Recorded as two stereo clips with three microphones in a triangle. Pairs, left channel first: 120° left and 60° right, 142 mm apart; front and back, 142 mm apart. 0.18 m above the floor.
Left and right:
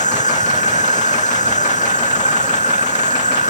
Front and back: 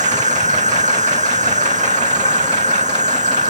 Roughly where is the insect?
Behind left.